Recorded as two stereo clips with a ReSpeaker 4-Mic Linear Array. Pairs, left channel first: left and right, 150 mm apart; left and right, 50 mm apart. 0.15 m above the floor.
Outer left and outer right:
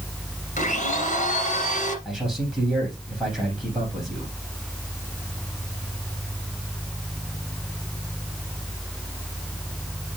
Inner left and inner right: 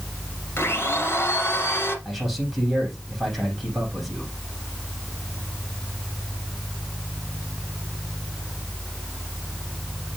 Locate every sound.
0.6 s a blender: 55° left (ahead or behind), 2.5 m
2.0 s a man speaking: 5° right (ahead or behind), 5.5 m